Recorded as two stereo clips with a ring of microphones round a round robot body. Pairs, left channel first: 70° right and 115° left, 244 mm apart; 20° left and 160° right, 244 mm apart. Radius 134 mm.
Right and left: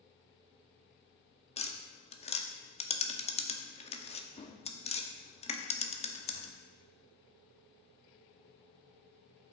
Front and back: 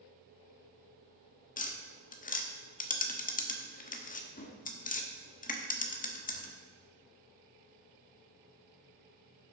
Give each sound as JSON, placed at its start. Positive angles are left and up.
{"t": 1.6, "sound": "tapping", "azimuth_deg": -15, "distance_m": 1.1}